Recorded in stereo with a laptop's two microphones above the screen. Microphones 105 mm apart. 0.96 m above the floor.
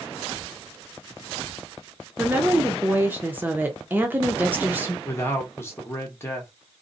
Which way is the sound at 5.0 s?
25° left (ahead or behind).